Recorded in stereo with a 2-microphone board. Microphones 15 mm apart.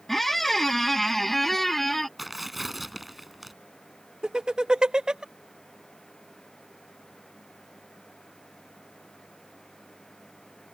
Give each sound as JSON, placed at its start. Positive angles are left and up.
{"t": 0.1, "sound": "a squeak", "side_deg": 10}
{"t": 2.2, "sound": "tearing paper", "side_deg": -5}
{"t": 4.2, "sound": "laughter", "side_deg": -55}